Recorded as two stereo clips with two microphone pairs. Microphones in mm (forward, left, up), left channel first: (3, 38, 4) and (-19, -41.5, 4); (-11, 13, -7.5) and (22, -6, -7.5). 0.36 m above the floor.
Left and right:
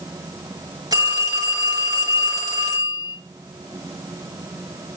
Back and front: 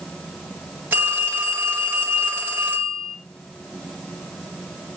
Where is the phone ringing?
65° right, 3.5 m.